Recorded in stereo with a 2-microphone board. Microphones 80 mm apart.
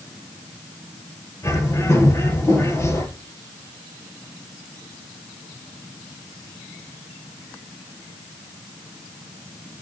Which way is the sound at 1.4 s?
35° left (ahead or behind).